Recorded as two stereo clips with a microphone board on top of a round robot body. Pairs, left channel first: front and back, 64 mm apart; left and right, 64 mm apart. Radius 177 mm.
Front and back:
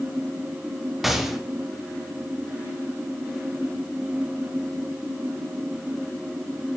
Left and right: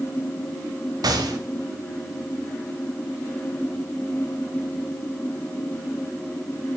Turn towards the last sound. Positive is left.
turn(degrees=-90)